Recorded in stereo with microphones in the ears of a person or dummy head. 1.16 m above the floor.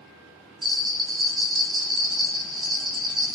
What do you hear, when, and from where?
0.6 s a bell: 25° right (ahead or behind), 0.9 m